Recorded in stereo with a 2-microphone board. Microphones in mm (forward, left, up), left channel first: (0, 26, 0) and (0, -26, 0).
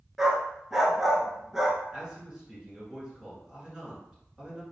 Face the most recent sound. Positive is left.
turn(degrees=-20)  # may be behind; listen again after turning